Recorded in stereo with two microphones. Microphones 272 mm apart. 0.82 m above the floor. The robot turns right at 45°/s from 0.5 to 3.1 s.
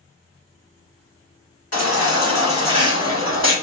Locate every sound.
1.7 s a baby crying: 65° left, 1.3 m; by 3.5 s 130° left, 1.3 m